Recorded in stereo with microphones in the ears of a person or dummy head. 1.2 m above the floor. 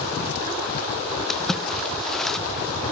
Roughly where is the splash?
Centre.